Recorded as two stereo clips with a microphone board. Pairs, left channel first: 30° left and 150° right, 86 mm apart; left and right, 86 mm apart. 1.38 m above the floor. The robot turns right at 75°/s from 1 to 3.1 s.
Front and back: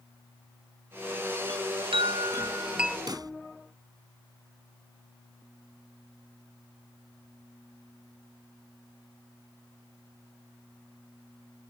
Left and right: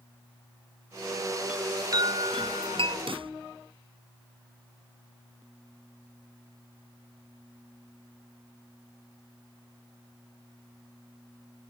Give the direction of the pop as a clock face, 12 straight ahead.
4 o'clock.